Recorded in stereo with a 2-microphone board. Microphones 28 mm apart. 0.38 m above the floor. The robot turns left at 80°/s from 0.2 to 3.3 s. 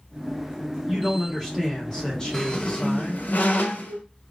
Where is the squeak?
15° left (ahead or behind), 0.6 m; by 4.0 s 70° left (ahead or behind), 0.6 m.